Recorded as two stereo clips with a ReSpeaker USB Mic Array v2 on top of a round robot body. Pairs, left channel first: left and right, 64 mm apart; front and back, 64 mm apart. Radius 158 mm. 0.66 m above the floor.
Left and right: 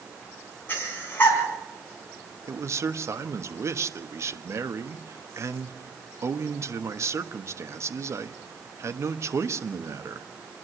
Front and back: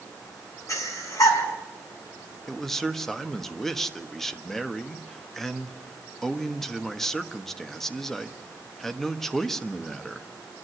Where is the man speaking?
85° right, 1.5 m.